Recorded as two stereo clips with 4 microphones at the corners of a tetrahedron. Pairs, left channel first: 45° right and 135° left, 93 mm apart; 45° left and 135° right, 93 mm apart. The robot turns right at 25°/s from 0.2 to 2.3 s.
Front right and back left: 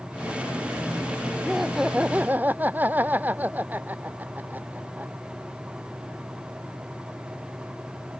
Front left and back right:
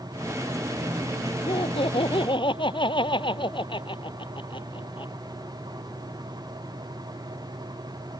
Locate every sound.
1.5 s laughter: 45° left; by 5.1 s 65° left